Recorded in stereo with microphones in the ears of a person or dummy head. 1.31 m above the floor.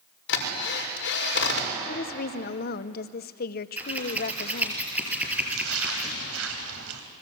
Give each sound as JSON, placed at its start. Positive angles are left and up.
{"t": 0.3, "sound": "a drill", "side_deg": 70, "distance_m": 5.5}
{"t": 1.9, "sound": "a woman speaking", "side_deg": 50, "distance_m": 0.9}
{"t": 3.8, "sound": "scissors", "side_deg": -10, "distance_m": 6.0}
{"t": 5.4, "sound": "a splash", "side_deg": -75, "distance_m": 3.0}